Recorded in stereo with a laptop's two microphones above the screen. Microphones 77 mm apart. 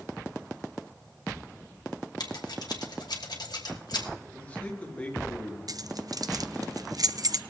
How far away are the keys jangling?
About 0.5 m.